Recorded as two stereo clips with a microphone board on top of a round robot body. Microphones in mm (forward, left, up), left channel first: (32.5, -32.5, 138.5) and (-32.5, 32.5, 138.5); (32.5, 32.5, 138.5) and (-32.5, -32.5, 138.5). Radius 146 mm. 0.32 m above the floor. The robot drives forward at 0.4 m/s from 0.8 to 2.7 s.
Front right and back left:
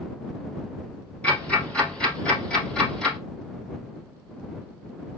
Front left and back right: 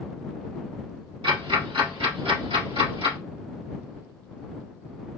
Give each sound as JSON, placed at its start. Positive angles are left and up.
{"t": 1.2, "sound": "ticking", "azimuth_deg": -120, "distance_m": 3.0}